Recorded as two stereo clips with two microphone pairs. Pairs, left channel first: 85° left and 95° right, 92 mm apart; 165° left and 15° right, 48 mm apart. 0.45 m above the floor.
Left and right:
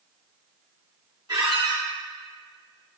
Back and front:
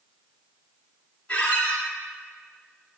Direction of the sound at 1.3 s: 135° right.